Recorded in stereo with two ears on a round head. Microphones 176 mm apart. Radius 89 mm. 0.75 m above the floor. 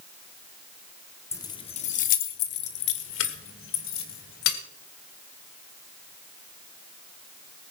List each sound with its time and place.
1.3 s keys jangling: 15° left (ahead or behind), 0.9 m; by 4.6 s 80° left, 2.5 m